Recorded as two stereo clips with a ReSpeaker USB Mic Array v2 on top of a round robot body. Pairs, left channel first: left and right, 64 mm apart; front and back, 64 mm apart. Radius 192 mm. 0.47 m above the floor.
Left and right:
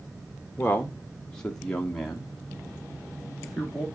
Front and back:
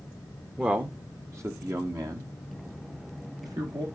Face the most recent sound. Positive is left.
turn(degrees=180)